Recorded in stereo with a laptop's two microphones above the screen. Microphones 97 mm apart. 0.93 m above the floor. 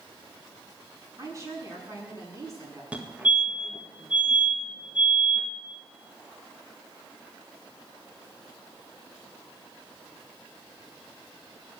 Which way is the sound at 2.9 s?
15° right (ahead or behind).